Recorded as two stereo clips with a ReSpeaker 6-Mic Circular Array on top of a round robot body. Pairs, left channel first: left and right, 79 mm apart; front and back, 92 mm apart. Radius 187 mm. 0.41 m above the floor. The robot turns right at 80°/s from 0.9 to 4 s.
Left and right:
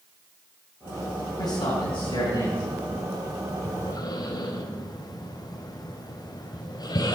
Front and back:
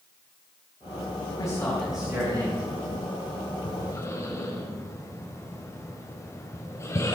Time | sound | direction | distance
1.4 | a man speaking | 45° left | 4.5 m
3.6 | breathing | 30° left | 2 m